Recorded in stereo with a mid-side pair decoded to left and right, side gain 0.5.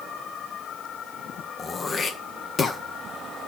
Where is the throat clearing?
35° left, 1.5 m.